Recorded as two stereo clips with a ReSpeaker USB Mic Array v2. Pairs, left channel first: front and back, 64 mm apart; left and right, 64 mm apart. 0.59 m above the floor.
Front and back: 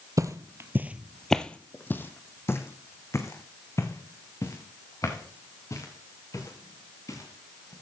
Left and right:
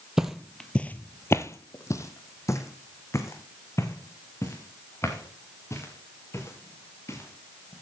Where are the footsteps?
170° right, 0.9 m; by 7.7 s 40° left, 6 m.